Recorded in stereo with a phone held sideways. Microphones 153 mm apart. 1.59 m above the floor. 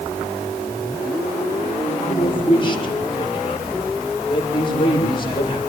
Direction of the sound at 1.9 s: 35° left (ahead or behind).